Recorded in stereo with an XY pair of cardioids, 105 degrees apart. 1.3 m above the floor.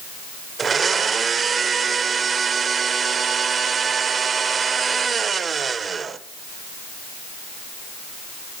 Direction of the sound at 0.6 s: 40° right.